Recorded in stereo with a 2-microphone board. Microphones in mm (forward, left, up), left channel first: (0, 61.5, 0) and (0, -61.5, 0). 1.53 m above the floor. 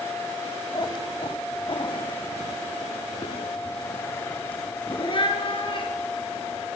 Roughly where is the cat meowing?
Left.